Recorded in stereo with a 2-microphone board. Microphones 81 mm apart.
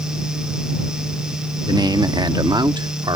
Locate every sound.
1.7 s a man speaking: 55° right (ahead or behind); by 3.2 s 65° right (ahead or behind)